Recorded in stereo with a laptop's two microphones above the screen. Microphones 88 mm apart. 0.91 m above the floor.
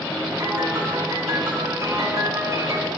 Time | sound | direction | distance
0.4 | a piano | 40° right (ahead or behind) | 1.4 m